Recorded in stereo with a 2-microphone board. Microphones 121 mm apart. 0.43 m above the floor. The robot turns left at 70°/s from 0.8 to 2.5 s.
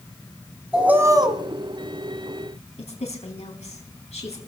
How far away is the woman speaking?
About 4 m.